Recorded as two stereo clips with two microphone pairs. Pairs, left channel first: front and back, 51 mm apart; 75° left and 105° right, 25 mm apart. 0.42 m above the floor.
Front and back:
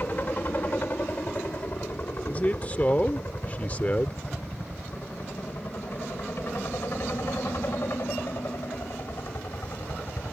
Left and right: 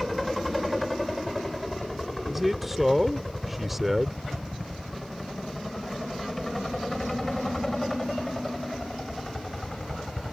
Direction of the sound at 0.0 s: 15° right.